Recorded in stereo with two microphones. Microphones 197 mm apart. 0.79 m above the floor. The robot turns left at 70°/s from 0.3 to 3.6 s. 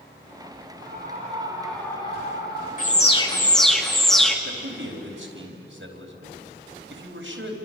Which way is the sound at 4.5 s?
80° right.